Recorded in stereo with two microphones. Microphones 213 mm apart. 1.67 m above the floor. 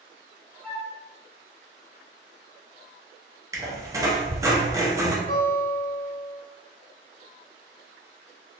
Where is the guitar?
45° left (ahead or behind), 1.3 m.